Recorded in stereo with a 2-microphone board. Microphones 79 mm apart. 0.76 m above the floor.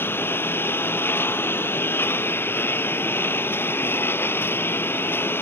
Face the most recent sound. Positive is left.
turn(degrees=30)  # may be behind; listen again after turning